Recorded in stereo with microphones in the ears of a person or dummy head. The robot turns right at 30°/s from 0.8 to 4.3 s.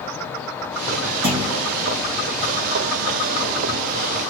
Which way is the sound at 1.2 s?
75° right (ahead or behind).